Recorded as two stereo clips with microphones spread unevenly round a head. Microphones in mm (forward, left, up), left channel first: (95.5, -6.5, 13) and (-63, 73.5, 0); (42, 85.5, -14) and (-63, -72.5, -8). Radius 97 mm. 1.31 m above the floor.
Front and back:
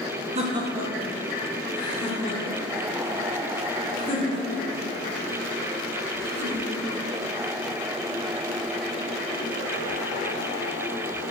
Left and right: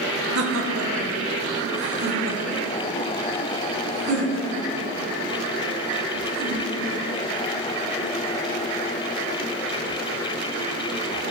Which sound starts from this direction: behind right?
Laughter, at 0.3 s.